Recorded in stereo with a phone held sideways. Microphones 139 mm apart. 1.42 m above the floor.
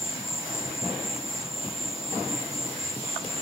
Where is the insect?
45° left (ahead or behind), 0.8 m.